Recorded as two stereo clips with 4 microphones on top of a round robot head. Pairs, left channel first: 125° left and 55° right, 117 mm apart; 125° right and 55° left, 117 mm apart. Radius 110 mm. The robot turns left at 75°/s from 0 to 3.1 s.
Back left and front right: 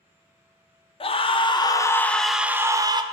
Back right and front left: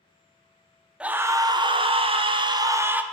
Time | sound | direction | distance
1.0 | a scream | 130° left | 1.0 m